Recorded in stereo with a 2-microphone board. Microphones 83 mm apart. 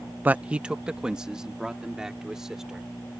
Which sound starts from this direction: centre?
A man speaking, at 0.2 s.